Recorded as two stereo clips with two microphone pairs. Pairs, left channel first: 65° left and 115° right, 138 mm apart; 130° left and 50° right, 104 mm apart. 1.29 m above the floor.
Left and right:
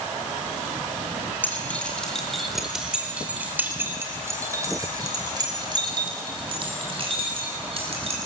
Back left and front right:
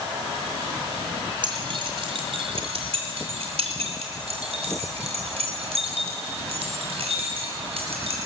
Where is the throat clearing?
I don't hear throat clearing.